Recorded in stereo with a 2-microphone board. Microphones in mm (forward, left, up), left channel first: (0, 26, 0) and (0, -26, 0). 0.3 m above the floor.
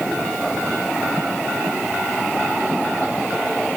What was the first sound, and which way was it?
Only background noise.